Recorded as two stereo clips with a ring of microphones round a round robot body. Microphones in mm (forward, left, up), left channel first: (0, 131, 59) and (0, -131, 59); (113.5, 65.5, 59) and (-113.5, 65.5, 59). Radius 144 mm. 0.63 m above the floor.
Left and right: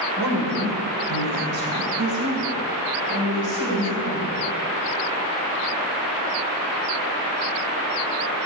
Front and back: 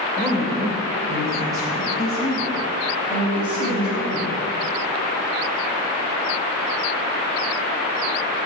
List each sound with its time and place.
0.2 s a woman speaking: 100° right, 2.5 m; by 4.3 s 105° right, 6.5 m